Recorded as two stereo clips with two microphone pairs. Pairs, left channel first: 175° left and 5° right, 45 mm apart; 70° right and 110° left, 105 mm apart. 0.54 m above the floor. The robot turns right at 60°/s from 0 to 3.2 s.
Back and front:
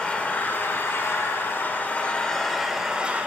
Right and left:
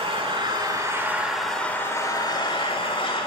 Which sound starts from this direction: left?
An engine running, at 0.0 s.